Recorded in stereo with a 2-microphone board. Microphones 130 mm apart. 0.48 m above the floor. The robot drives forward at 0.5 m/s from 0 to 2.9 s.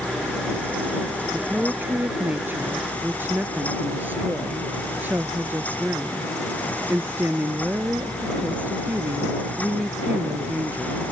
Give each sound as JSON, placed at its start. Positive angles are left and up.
{"t": 1.3, "sound": "a woman speaking", "side_deg": -15}